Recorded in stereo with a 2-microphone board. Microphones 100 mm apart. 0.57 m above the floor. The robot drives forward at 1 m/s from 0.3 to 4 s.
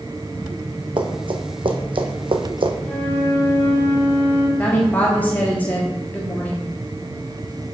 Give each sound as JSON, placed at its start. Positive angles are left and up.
{"t": 1.0, "sound": "running footsteps", "side_deg": -55, "distance_m": 1.3}
{"t": 2.8, "sound": "a flute", "side_deg": 20, "distance_m": 4.0}
{"t": 4.6, "sound": "a woman speaking", "side_deg": 20, "distance_m": 1.1}